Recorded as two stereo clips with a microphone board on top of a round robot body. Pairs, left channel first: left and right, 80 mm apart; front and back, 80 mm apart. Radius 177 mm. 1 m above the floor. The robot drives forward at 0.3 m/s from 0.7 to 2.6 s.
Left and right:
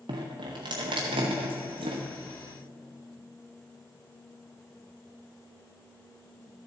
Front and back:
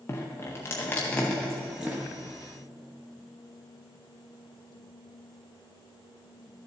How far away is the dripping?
About 0.6 m.